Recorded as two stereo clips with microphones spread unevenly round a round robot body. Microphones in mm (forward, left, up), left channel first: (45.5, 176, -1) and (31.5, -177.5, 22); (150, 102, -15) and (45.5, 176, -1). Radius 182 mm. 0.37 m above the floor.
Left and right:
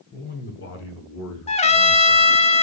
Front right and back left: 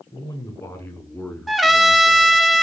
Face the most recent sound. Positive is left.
turn(degrees=45)